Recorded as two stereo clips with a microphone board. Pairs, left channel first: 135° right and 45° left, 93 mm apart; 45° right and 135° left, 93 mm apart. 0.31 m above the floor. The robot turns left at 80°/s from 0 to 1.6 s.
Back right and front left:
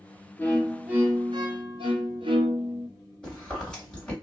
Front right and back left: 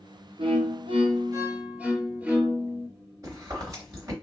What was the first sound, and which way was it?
A violin, 155° left.